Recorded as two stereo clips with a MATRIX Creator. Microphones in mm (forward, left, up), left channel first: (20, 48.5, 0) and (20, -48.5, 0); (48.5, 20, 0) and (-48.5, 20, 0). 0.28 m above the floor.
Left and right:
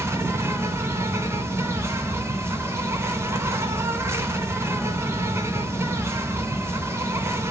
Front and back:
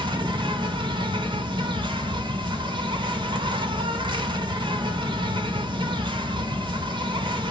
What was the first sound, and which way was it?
An insect, 150° right.